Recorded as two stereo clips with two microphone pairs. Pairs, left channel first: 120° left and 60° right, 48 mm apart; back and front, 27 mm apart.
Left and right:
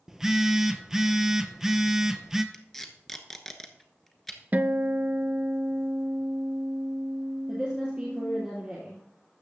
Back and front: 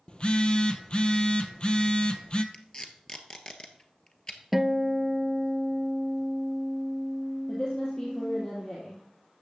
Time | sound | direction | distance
0.1 | a phone buzzing | 140° right | 0.7 m
2.5 | tape being pulled | 155° right | 1.1 m
4.5 | a guitar | 85° right | 0.6 m
7.5 | a woman speaking | 125° right | 2.5 m